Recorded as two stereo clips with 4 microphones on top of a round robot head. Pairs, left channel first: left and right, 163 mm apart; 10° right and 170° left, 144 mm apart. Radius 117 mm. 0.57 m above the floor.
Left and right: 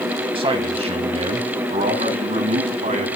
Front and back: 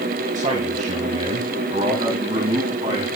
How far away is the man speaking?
About 3.5 m.